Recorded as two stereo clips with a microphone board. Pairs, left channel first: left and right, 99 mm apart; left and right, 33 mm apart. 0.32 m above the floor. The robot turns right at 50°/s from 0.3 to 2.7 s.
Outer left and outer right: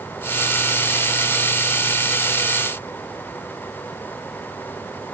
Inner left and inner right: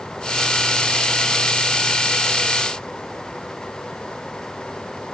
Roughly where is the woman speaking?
I don't hear a woman speaking.